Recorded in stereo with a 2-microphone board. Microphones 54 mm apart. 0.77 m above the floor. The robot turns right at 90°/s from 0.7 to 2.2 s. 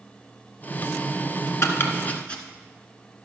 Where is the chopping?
60° left (ahead or behind), 1.3 m; by 2.4 s 20° left (ahead or behind), 1.3 m.